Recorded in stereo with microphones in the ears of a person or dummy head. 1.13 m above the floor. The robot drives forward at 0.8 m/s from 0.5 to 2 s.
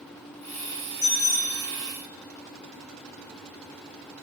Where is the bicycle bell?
80° left, 5.5 m; by 1.6 s 85° left, 5.5 m.